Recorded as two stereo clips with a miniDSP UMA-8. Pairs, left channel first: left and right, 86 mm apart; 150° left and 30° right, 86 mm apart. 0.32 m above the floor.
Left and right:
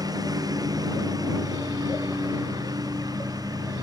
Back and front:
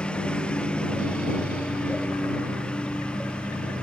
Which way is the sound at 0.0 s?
130° right.